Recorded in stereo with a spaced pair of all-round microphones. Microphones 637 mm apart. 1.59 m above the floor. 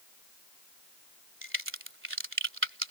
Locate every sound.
1.4 s a crack: 20° right (ahead or behind)